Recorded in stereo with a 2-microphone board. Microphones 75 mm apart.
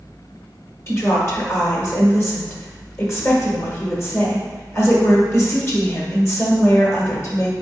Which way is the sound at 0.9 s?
40° left (ahead or behind).